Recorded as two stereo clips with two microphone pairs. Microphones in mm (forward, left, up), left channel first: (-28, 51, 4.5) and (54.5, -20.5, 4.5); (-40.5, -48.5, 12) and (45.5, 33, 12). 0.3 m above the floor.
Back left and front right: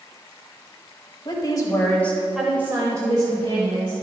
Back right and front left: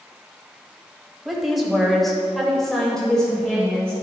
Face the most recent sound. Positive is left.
turn(degrees=-55)